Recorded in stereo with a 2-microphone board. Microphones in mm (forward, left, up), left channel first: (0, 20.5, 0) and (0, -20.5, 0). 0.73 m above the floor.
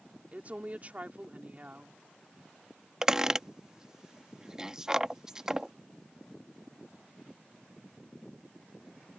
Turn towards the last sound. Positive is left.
turn(degrees=-15)  # may be behind; listen again after turning